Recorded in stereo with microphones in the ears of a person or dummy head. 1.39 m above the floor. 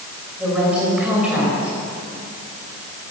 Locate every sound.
0.4 s a woman speaking: 5° right (ahead or behind), 5.5 m